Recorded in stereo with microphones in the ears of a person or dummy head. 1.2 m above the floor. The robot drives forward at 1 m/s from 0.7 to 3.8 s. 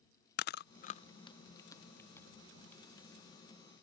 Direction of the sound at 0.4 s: 50° left (ahead or behind).